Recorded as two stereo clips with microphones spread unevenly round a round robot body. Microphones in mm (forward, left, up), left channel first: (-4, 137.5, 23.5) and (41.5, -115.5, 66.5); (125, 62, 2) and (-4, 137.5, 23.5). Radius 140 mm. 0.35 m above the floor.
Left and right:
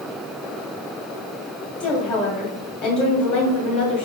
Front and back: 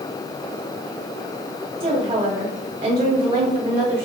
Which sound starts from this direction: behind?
A woman speaking, at 1.8 s.